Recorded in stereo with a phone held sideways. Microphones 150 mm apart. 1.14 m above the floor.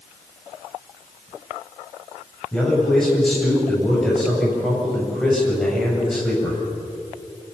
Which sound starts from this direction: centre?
A man speaking, at 2.5 s.